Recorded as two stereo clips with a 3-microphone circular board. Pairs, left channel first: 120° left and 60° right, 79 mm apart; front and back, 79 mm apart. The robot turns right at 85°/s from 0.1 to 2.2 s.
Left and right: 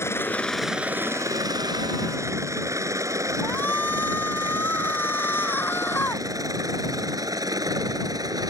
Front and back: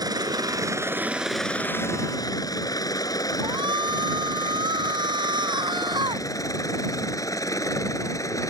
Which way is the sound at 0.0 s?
170° left.